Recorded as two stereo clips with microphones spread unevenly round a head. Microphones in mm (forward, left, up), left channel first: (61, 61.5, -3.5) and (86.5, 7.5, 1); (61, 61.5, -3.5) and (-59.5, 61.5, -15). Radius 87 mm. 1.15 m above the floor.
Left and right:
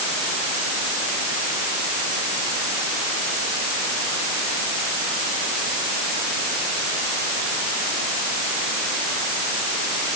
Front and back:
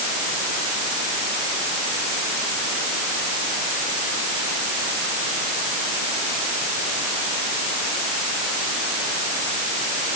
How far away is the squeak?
I don't hear a squeak.